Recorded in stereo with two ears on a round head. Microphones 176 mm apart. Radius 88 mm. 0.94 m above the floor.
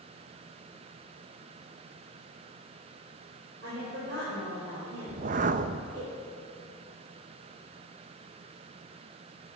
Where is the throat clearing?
I don't hear throat clearing.